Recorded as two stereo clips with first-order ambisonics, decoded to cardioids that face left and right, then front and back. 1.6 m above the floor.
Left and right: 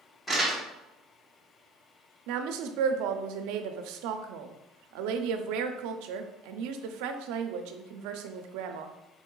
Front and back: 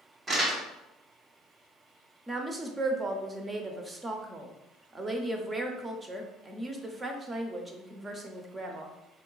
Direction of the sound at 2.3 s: 105° right.